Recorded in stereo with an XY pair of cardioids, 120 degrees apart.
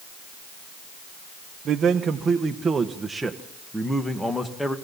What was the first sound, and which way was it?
A man speaking, 50° right.